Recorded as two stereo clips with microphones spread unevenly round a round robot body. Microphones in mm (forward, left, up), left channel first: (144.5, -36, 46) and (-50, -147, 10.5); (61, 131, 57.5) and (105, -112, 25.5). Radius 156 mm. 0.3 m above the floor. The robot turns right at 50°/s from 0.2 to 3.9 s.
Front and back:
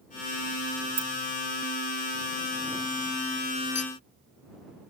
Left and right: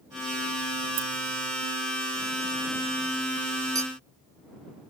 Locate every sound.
1.0 s keys jangling: 110° right; by 1.1 s 105° right
3.8 s a clink: 5° right; by 3.9 s 5° left